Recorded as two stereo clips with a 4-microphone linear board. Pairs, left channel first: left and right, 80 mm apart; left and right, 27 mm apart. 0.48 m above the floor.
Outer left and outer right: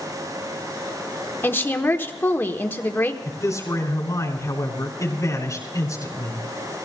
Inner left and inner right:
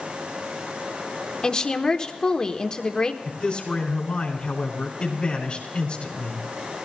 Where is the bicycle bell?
No bicycle bell in this recording.